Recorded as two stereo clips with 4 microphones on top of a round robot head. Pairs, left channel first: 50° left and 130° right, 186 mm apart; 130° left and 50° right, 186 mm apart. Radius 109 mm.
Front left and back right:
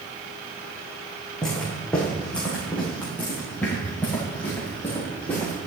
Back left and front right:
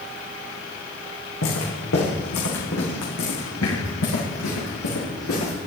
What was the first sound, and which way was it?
Footsteps, 135° left.